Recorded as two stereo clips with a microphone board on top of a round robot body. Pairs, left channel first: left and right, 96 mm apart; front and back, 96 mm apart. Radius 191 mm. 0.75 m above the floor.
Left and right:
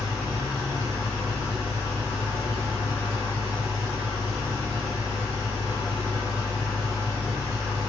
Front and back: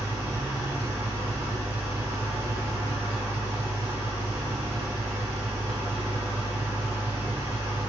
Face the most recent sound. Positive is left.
turn(degrees=175)